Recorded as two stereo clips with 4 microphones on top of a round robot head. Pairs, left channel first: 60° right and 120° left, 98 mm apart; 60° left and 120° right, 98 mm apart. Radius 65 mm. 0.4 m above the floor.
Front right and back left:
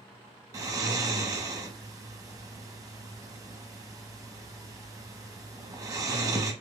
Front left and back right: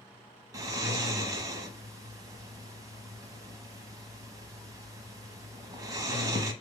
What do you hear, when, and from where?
0.5 s snoring: straight behind, 0.7 m